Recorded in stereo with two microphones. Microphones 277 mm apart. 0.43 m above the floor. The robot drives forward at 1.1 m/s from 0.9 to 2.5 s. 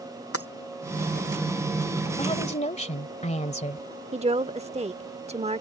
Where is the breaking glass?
55° left (ahead or behind).